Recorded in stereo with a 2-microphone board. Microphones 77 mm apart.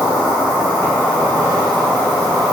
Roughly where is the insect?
Right.